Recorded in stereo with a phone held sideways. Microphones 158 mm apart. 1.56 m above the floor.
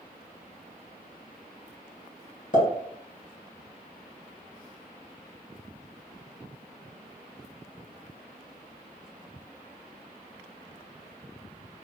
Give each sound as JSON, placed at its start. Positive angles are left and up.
{"t": 2.5, "sound": "a pop", "side_deg": 55, "distance_m": 2.0}